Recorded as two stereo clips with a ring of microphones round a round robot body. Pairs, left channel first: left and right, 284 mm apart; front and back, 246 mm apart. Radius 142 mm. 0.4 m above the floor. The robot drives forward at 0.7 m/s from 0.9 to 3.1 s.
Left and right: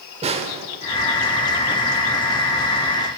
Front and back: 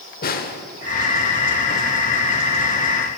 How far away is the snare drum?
About 0.8 m.